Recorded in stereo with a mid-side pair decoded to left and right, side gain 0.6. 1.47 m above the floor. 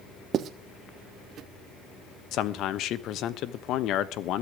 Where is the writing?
45° right, 1.3 m.